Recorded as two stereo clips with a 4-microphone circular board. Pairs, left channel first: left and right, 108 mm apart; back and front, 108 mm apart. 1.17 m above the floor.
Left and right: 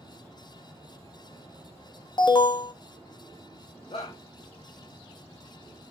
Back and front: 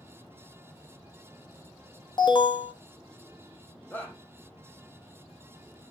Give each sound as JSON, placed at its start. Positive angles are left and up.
{"t": 2.2, "sound": "an alarm", "azimuth_deg": 135, "distance_m": 1.2}
{"t": 3.9, "sound": "a shout", "azimuth_deg": 110, "distance_m": 1.6}